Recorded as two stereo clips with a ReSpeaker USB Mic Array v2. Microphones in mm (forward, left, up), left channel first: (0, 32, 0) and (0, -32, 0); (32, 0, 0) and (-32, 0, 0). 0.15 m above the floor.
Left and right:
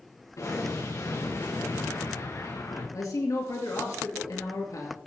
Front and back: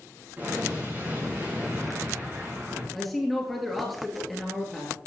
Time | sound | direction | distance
0.4 | an explosion | 120° left | 6 m
2.9 | a man speaking | 85° left | 2.5 m